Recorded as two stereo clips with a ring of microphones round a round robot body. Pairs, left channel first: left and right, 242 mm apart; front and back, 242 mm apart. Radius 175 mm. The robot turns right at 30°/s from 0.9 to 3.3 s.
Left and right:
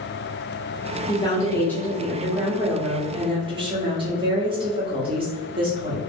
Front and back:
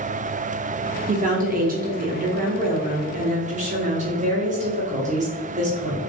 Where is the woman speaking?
150° left, 0.9 m; by 6.0 s 145° right, 0.9 m.